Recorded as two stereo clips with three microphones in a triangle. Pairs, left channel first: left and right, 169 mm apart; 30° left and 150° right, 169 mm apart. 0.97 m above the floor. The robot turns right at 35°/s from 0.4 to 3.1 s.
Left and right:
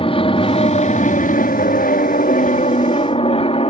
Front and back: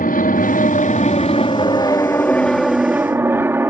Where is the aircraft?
40° left; by 3.7 s 135° left.